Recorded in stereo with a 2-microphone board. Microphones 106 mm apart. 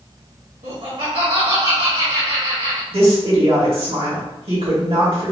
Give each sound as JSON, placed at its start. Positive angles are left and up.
{"t": 0.6, "sound": "laughter", "side_deg": -80, "distance_m": 1.4}
{"t": 2.9, "sound": "a woman speaking", "side_deg": -65, "distance_m": 1.5}